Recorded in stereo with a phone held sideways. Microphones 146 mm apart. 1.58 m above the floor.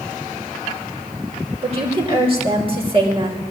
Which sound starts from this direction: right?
A woman speaking, at 1.6 s.